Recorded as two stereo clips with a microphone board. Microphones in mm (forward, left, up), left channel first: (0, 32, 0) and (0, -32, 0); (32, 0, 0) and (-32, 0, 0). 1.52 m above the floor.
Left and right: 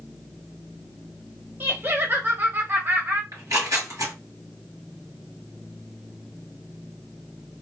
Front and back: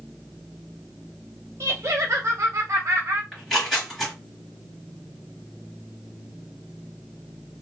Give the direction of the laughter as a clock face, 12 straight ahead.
5 o'clock.